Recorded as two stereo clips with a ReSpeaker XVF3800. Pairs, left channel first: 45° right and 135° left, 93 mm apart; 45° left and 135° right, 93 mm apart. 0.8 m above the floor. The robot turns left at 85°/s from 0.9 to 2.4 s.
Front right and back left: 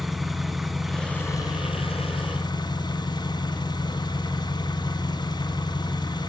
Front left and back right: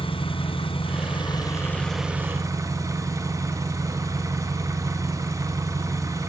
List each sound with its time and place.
0.0 s an engine running: 45° left, 1.7 m; by 6.3 s 80° right, 1.7 m